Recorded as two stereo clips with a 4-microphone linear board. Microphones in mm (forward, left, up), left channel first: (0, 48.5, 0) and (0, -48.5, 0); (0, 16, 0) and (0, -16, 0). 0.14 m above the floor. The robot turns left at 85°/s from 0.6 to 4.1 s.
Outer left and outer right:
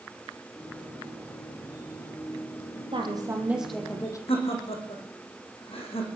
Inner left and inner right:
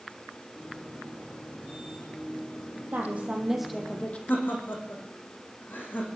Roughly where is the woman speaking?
Behind right.